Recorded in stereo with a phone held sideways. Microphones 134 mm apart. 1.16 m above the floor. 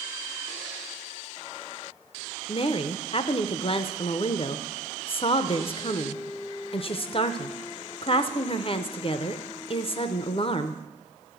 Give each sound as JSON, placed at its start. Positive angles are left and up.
{"t": 2.5, "sound": "a woman speaking", "side_deg": 45, "distance_m": 0.5}